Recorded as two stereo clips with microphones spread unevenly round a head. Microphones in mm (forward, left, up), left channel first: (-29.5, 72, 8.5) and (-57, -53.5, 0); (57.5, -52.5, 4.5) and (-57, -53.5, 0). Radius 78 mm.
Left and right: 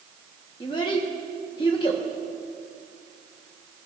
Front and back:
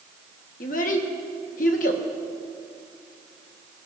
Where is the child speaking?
15° left, 1.3 m.